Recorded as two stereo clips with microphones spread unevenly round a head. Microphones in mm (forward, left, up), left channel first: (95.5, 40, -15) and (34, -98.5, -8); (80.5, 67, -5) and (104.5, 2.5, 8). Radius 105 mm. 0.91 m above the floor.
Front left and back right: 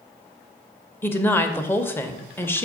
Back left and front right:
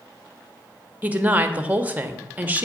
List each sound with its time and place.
1.0 s a woman speaking: straight ahead, 0.7 m